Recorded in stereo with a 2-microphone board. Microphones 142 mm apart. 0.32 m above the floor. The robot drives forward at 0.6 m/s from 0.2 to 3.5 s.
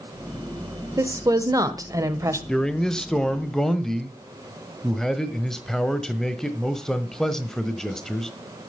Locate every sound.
1.0 s a woman speaking: 25° right (ahead or behind), 1.0 m; by 2.4 s 20° right (ahead or behind), 1.2 m
2.5 s a man speaking: 5° left (ahead or behind), 0.8 m